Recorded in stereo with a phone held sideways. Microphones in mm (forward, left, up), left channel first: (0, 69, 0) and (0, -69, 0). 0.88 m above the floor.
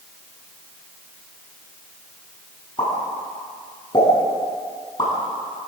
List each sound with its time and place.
2.8 s a pop: 35° left (ahead or behind), 10 m